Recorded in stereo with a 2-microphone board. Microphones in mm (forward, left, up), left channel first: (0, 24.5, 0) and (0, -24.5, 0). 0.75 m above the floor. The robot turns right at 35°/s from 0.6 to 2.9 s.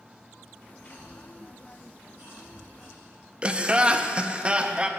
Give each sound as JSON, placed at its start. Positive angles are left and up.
{"t": 0.8, "sound": "a cough", "side_deg": -70, "distance_m": 3.5}
{"t": 3.4, "sound": "laughter", "side_deg": -20, "distance_m": 0.5}